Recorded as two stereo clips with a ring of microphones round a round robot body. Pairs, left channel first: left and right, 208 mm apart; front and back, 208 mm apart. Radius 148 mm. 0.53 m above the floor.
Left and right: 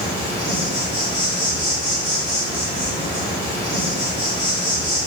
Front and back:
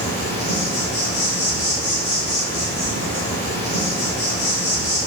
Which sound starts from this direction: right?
An insect, at 0.0 s.